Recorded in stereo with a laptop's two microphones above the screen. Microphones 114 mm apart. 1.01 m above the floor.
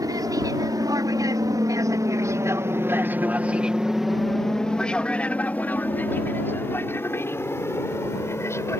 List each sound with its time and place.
0.0 s an aircraft: 35° right (ahead or behind); by 8.8 s 25° left (ahead or behind)